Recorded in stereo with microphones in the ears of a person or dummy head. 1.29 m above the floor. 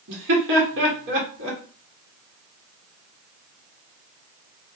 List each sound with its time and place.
0.1 s laughter: 65° right (ahead or behind), 1.6 m